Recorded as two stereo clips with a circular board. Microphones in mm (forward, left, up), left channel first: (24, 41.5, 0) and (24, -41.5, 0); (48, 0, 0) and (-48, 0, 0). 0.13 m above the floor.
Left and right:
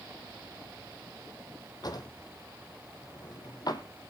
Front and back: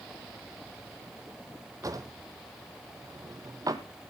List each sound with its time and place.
1.8 s a drawer: 130° left, 1.2 m